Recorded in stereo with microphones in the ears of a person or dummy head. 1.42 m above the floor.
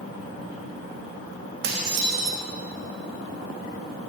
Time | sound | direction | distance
1.6 | dishes clattering | 60° right (ahead or behind) | 1.3 m